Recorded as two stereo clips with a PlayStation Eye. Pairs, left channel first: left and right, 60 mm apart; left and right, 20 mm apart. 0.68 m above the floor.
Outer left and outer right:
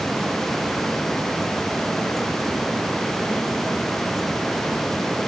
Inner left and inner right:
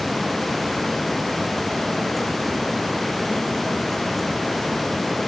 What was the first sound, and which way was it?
Only background noise.